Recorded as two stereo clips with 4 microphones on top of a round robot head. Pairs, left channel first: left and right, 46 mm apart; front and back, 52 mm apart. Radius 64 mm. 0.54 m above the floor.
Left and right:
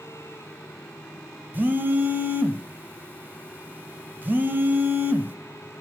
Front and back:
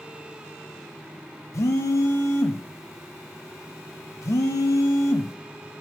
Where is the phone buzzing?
40° right, 0.5 m.